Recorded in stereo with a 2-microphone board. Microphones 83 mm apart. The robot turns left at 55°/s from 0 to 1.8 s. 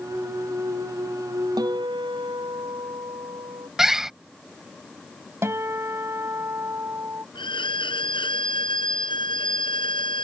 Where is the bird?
5° right (ahead or behind).